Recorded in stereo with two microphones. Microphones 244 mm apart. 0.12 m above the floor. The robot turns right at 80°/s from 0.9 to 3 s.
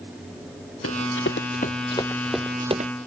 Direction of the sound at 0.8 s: 70° left (ahead or behind).